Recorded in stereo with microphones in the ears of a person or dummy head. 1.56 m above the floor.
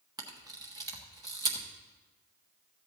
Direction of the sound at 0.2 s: 20° right (ahead or behind).